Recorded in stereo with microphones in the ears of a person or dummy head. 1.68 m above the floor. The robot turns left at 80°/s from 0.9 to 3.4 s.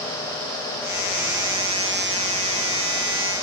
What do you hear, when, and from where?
Only background noise.